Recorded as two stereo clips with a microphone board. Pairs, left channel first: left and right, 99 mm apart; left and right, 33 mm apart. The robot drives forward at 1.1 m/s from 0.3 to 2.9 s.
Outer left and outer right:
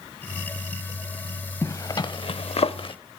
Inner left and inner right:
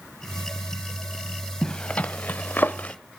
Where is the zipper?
35° left (ahead or behind), 1.2 m; by 3.0 s 60° left (ahead or behind), 0.8 m.